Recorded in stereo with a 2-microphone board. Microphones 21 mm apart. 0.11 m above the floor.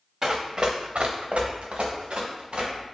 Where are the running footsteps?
25° right (ahead or behind), 0.5 m; by 2.8 s 55° right (ahead or behind), 1.4 m.